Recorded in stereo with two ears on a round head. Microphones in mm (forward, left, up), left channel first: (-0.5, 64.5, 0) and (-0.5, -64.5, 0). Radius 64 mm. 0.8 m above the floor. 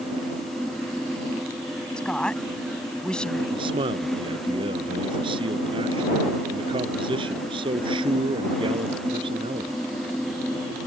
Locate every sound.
2.0 s a woman speaking: 5° left (ahead or behind)
3.5 s a man speaking: 35° right (ahead or behind)